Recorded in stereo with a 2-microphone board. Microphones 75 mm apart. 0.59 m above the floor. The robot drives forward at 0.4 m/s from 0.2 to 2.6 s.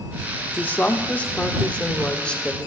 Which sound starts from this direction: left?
A woman speaking, at 0.6 s.